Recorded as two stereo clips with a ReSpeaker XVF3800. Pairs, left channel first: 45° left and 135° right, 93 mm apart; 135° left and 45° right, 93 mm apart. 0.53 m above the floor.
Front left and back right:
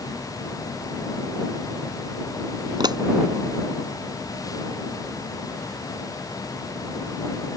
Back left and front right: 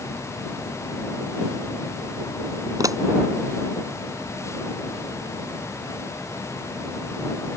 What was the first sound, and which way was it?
A pop, 95° right.